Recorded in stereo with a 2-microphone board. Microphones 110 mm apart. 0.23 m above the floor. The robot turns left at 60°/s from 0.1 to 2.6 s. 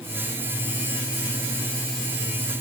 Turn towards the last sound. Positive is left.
No sound to turn to.